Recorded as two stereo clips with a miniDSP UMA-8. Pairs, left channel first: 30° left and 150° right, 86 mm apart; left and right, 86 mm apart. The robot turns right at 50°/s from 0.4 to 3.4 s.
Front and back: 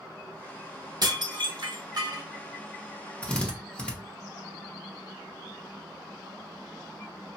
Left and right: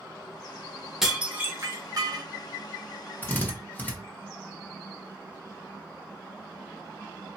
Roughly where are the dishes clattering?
Behind.